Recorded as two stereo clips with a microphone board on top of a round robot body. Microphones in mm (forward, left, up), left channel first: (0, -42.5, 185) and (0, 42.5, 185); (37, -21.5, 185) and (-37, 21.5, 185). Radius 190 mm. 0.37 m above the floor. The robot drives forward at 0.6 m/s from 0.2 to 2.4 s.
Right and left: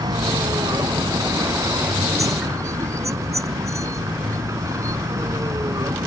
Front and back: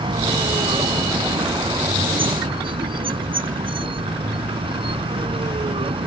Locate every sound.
0.0 s a vehicle: 130° left; by 6.1 s 145° left